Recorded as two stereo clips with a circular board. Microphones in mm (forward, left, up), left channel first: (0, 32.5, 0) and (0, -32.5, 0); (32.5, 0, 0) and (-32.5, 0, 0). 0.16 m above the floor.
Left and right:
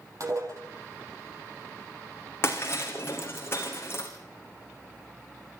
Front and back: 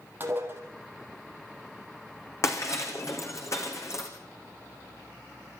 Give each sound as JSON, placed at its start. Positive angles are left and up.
{"t": 0.2, "sound": "dishes clattering", "azimuth_deg": -125, "distance_m": 3.5}
{"t": 2.4, "sound": "breaking glass", "azimuth_deg": 40, "distance_m": 3.0}